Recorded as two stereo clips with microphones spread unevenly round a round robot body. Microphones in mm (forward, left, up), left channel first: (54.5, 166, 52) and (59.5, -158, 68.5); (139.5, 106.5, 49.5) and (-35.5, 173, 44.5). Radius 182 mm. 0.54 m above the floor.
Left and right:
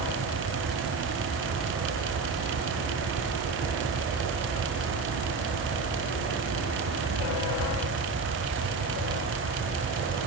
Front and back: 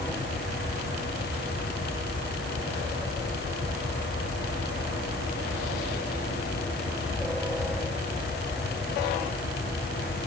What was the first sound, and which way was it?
Only background noise.